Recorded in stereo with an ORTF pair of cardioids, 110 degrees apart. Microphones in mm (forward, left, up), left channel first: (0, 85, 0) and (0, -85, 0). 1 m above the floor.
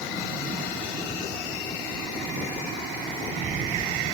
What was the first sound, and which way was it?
Only background noise.